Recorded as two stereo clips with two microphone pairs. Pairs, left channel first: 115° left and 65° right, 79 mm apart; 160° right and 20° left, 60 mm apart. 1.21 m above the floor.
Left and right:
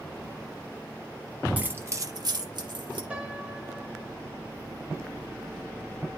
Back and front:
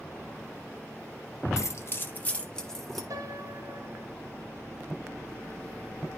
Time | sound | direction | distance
1.6 | keys jangling | 135° right | 1.0 m
3.1 | a piano | 15° left | 1.3 m